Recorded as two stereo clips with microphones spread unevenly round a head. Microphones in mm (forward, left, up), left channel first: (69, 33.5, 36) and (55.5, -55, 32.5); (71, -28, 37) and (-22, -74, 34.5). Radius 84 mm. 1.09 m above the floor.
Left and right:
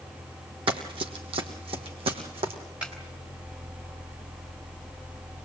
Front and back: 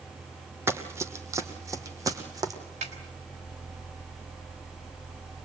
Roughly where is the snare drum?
Behind.